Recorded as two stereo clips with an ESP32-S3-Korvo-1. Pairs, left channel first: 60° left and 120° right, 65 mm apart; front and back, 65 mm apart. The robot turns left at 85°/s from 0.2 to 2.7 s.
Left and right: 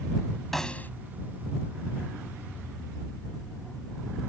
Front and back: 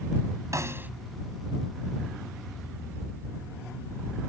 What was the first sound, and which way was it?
A snare drum, 150° left.